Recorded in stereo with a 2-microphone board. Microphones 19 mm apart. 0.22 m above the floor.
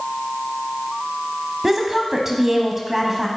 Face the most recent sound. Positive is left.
turn(degrees=-20)  # may be behind; listen again after turning